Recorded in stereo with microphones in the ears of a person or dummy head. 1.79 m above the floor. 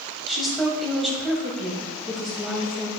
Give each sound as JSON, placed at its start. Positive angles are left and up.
{"t": 0.3, "sound": "a woman speaking", "side_deg": -5, "distance_m": 2.0}